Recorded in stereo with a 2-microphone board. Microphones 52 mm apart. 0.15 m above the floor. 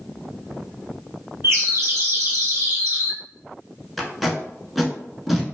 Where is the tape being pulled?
Centre (ahead or behind), 0.6 m.